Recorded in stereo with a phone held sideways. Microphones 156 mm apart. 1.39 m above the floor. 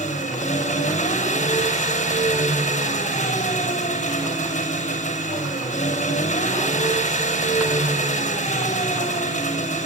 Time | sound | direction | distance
0.0 | an engine running | 50° left (ahead or behind) | 6.5 m